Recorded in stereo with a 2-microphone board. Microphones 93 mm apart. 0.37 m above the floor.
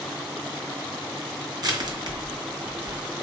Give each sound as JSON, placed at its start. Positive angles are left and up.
{"t": 1.6, "sound": "crushing", "side_deg": -45, "distance_m": 2.5}